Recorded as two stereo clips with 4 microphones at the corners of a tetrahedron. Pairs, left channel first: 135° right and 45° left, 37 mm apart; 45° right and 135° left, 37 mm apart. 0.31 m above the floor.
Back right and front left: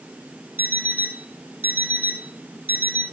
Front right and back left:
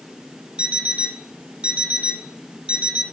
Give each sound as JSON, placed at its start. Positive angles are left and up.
{"t": 0.6, "sound": "an alarm clock", "azimuth_deg": 80, "distance_m": 2.0}